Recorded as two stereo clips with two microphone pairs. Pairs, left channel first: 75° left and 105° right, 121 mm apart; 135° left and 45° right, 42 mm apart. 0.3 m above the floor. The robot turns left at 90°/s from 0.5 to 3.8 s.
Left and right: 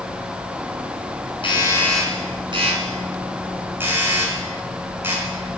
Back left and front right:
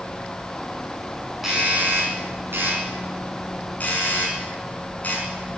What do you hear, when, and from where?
1.4 s a doorbell: 35° left, 4.5 m; by 5.3 s 175° right, 4.5 m